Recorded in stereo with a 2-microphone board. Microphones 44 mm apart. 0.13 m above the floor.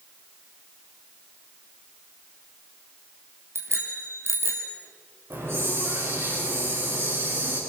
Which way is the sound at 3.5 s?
75° right (ahead or behind).